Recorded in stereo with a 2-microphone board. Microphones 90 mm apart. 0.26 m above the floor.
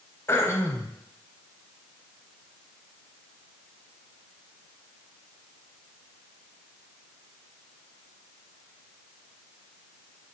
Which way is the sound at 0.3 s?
30° left (ahead or behind).